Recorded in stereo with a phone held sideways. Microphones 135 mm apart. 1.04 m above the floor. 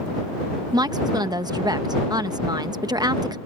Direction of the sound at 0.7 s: 30° right (ahead or behind).